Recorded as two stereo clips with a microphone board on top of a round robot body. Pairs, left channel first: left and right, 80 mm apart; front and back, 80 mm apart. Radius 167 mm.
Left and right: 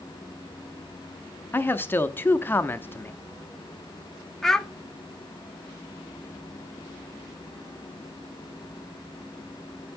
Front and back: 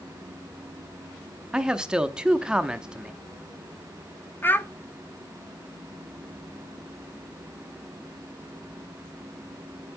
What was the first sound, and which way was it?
A man speaking, 110° left.